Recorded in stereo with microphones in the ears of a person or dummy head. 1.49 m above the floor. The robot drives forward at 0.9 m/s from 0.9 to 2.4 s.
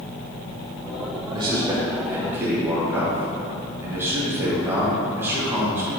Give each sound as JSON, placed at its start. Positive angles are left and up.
{"t": 1.3, "sound": "a man speaking", "side_deg": -30, "distance_m": 1.0}